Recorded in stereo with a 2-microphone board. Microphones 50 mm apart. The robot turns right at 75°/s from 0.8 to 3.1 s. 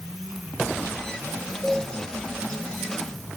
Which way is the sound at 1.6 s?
5° left (ahead or behind).